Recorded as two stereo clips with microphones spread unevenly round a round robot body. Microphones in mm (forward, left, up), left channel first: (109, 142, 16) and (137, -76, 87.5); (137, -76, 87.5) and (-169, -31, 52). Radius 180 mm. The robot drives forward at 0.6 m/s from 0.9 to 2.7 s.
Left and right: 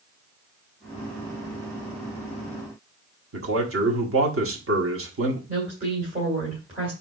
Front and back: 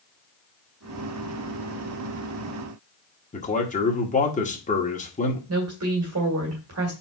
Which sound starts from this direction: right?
A man speaking, at 3.3 s.